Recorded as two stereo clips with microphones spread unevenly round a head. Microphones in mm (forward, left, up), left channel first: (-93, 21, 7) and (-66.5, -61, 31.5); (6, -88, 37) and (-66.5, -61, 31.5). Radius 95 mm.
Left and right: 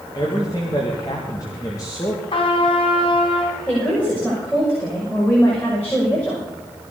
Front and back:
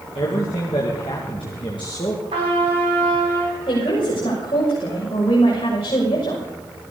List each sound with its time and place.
0.1 s a man speaking: 35° left, 2 m
2.3 s a trumpet: 130° left, 4.5 m
3.7 s a woman speaking: 25° left, 6.5 m